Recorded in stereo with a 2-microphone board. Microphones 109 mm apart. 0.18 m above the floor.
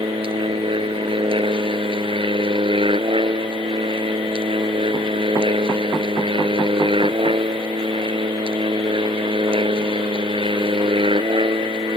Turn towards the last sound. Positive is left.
turn(degrees=-50)  # may be behind; listen again after turning